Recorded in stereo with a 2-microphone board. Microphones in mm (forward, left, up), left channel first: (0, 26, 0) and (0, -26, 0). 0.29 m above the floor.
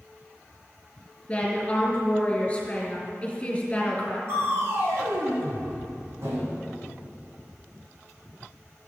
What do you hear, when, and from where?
1.3 s a woman speaking: 25° left (ahead or behind), 4 m
4.3 s crushing: 55° right (ahead or behind), 4 m